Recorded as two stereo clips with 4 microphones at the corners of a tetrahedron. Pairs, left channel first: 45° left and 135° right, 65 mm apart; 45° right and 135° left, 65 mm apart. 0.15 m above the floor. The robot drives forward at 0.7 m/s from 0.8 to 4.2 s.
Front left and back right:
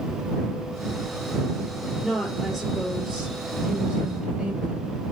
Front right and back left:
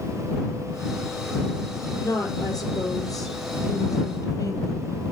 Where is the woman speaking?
45° right, 4.5 m; by 5.1 s 65° right, 4 m.